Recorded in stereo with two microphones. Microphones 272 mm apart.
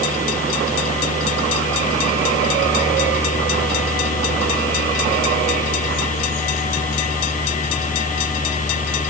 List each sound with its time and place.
Only background noise.